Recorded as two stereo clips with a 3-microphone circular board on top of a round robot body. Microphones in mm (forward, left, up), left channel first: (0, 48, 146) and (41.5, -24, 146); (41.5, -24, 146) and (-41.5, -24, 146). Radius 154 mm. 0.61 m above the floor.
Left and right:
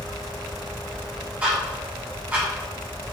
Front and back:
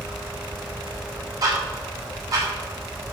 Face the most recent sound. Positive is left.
turn(degrees=-135)